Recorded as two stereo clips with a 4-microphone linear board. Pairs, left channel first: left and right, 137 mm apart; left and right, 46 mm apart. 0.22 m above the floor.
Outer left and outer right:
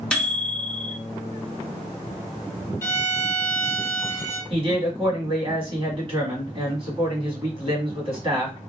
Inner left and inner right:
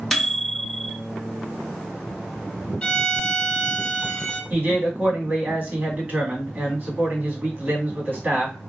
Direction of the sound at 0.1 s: 5° left (ahead or behind).